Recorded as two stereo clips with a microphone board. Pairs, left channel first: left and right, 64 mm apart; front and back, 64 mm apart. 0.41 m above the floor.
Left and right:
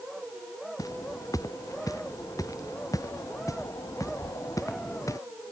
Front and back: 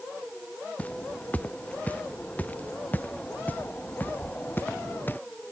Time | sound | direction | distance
0.8 | footsteps | 65° left | ?